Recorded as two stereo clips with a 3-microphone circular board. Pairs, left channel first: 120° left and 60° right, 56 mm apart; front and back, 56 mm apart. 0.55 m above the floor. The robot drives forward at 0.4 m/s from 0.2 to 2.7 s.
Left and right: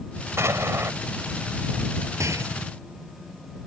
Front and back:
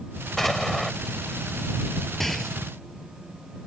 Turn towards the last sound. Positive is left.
turn(degrees=-85)